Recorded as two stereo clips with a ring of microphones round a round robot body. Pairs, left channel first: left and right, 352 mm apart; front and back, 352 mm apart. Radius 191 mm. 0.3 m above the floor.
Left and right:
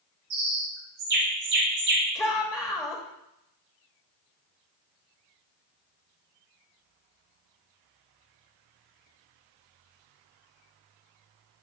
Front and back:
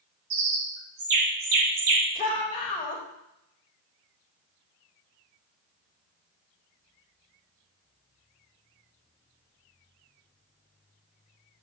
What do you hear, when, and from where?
0.3 s a bird: 150° right, 2.0 m
2.1 s a shout: 25° left, 1.1 m